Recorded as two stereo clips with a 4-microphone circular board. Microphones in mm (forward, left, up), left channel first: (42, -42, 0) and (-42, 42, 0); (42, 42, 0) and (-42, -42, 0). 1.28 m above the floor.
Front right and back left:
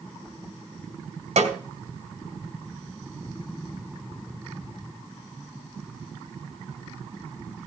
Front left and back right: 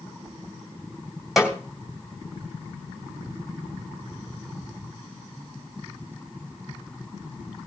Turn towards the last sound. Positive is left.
turn(degrees=135)